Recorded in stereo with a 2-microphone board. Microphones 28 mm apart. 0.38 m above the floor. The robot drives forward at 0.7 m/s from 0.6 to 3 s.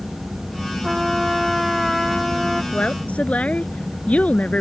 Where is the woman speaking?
50° left (ahead or behind); by 4.6 s 55° left (ahead or behind).